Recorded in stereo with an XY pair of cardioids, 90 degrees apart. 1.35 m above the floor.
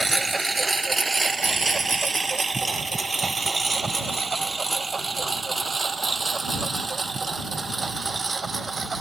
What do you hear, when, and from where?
0.0 s a lawn mower: 20° right; by 9.0 s 35° right